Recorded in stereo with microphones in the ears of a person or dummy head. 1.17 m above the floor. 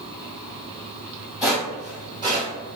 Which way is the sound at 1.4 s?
5° right (ahead or behind).